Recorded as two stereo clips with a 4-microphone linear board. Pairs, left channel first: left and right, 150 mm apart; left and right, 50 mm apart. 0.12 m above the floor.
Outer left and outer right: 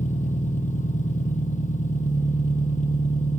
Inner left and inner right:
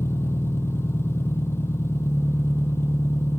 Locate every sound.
0.0 s an engine running: 60° left (ahead or behind), 1.2 m